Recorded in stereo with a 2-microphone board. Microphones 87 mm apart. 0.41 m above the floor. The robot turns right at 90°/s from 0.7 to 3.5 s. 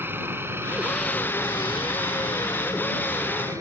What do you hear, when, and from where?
0.0 s a helicopter: 25° right (ahead or behind); by 3.6 s 35° right (ahead or behind)